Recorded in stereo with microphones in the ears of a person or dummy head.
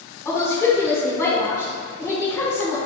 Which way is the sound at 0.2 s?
15° left (ahead or behind).